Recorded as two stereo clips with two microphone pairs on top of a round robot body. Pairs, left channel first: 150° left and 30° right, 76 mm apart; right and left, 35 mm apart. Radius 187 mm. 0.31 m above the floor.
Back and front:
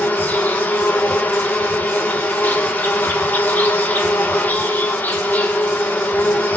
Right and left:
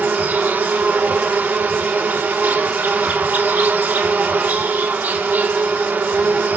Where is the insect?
90° left, 1.4 m.